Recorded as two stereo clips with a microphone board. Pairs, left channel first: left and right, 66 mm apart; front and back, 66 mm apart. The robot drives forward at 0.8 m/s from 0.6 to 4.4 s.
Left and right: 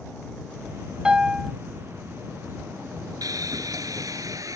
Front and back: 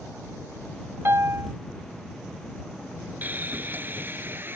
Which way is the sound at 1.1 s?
160° right.